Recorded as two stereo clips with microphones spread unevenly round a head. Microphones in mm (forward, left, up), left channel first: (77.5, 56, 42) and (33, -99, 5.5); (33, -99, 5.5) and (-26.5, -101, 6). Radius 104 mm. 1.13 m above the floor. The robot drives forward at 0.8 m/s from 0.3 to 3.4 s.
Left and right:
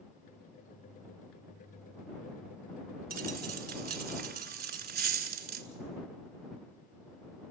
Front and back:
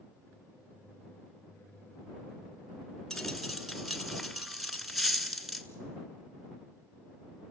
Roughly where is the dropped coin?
Right.